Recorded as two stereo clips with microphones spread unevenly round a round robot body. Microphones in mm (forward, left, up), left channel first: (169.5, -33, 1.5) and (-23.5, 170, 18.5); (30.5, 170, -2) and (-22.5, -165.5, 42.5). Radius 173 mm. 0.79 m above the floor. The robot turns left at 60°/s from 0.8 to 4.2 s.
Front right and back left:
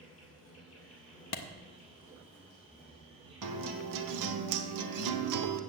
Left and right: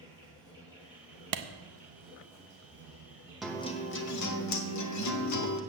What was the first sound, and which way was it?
An insect, 15° right.